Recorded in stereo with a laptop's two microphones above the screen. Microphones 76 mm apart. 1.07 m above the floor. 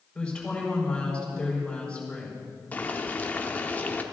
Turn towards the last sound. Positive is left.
turn(degrees=20)  # may be behind; listen again after turning